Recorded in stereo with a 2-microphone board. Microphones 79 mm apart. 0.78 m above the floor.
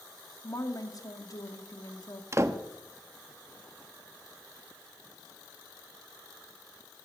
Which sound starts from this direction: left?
A woman speaking, at 0.4 s.